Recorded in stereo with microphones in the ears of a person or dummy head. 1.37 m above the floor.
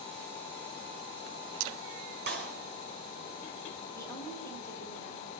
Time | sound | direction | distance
2.3 | a clap | 35° right (ahead or behind) | 4.5 m
4.0 | a woman speaking | 20° left (ahead or behind) | 5.5 m